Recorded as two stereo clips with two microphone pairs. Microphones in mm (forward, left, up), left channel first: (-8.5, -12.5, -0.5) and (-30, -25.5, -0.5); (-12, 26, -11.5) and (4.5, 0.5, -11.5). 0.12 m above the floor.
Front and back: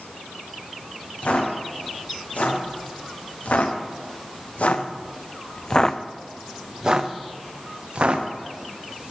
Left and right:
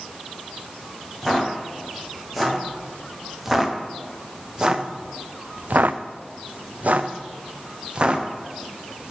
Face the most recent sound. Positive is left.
turn(degrees=-120)